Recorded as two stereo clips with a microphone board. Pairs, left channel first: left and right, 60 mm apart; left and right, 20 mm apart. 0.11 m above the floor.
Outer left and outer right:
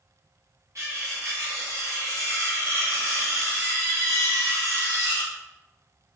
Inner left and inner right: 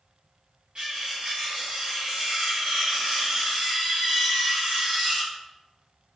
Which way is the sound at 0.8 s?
55° right (ahead or behind).